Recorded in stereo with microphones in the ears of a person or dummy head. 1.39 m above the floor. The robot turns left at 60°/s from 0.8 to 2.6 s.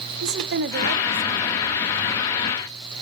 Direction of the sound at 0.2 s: 120° right.